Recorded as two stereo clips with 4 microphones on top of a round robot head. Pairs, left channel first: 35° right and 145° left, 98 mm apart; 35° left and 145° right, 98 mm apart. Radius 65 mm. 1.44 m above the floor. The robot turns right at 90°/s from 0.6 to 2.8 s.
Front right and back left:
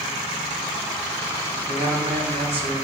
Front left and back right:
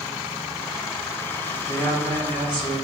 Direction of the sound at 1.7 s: 90° left.